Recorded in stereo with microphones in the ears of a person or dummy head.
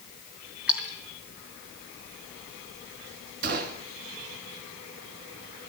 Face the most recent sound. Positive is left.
turn(degrees=-50)  # may be behind; listen again after turning